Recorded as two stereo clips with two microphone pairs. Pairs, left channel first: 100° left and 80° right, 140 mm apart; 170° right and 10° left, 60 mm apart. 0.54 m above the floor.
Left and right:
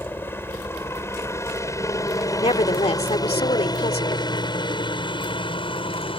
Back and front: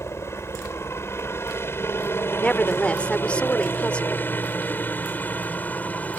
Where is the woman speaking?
130° left.